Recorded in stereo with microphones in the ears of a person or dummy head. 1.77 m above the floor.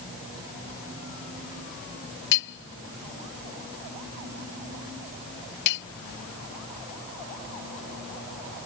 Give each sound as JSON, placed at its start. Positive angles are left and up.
{"t": 2.3, "sound": "hammering", "side_deg": 65}